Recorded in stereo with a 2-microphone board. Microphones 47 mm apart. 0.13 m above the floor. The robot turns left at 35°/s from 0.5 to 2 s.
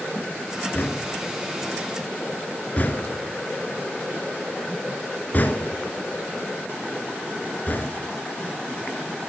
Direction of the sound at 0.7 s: 40° left (ahead or behind).